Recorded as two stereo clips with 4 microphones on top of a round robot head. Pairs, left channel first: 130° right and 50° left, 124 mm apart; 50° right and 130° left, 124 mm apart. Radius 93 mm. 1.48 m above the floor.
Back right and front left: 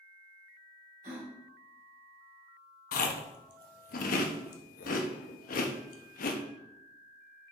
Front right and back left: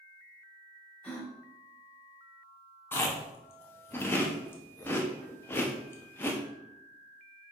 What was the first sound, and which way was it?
A gasp, 30° left.